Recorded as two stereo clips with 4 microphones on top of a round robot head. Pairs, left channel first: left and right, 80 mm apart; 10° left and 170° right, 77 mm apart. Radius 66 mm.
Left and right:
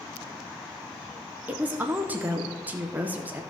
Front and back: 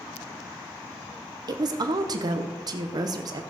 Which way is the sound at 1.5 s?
155° right.